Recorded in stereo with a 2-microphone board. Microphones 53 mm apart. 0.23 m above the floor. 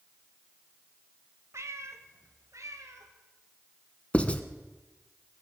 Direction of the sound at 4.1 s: 25° left (ahead or behind).